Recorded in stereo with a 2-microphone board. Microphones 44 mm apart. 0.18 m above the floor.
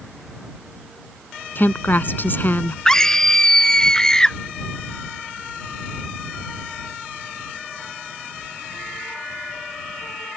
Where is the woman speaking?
50° left (ahead or behind).